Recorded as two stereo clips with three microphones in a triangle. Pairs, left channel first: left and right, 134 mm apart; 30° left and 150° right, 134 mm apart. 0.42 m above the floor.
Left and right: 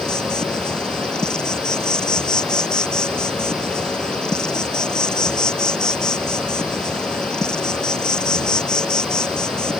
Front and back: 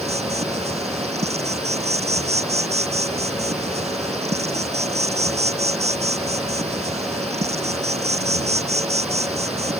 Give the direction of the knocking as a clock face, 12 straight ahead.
I don't hear knocking.